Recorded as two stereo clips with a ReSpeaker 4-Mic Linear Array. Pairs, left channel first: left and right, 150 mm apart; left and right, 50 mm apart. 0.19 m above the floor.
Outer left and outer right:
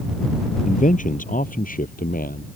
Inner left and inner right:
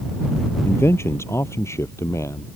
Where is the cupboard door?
No cupboard door in this recording.